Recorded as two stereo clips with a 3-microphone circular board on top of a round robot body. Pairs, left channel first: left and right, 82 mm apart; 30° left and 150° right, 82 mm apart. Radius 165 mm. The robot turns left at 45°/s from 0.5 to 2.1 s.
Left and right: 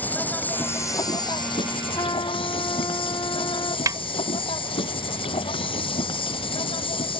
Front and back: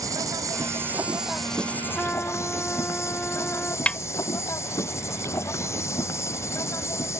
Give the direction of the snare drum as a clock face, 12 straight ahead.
2 o'clock.